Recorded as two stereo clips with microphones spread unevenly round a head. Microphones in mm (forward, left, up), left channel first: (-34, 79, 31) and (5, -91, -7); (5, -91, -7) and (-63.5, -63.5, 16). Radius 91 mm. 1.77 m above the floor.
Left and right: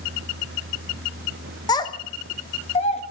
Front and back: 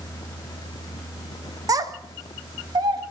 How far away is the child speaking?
About 1.4 m.